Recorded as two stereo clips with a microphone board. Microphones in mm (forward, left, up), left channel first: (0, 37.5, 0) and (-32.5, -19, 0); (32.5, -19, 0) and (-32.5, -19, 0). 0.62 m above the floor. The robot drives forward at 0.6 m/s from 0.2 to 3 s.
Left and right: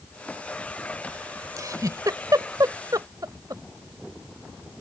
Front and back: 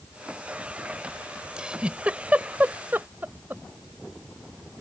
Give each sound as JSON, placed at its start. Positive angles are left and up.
{"t": 1.6, "sound": "a giggle", "azimuth_deg": -105}